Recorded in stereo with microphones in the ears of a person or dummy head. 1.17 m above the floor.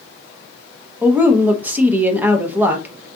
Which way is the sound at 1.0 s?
10° right (ahead or behind).